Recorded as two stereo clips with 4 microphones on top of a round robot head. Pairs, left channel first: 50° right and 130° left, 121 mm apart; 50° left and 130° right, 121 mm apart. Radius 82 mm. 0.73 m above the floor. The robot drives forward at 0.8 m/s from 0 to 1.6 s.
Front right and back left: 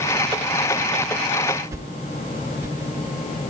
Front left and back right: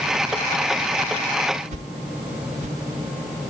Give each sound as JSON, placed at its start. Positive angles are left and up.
{"t": 1.7, "sound": "a whoosh", "azimuth_deg": -160, "distance_m": 0.6}